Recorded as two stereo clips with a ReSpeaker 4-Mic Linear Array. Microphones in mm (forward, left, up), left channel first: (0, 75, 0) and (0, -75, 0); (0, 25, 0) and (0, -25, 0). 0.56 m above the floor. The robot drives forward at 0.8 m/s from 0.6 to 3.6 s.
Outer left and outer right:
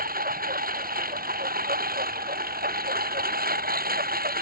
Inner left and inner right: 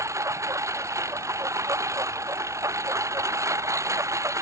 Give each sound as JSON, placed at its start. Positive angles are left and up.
{"t": 0.0, "sound": "a lawn mower", "side_deg": -80}